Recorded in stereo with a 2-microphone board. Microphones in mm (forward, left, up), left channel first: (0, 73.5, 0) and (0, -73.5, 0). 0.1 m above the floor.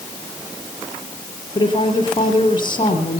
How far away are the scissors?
I don't hear scissors.